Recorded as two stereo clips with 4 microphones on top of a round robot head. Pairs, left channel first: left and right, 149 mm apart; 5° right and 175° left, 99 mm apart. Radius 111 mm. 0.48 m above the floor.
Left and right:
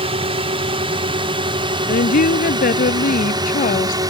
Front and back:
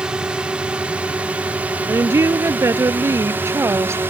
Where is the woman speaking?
115° left.